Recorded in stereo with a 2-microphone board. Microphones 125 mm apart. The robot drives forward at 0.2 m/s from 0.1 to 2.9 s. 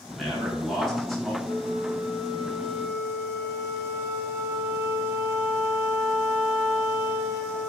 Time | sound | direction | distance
0.1 | a man speaking | 5° left (ahead or behind) | 1.4 m
1.4 | a flute | 20° right (ahead or behind) | 1.0 m